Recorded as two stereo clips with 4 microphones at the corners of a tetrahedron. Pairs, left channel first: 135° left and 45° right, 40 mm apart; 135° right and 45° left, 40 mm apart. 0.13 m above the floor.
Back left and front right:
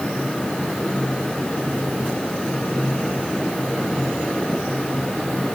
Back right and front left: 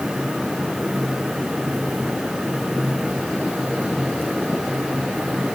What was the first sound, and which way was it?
Only background noise.